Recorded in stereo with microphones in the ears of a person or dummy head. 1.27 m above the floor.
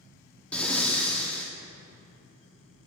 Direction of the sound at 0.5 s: 10° left (ahead or behind).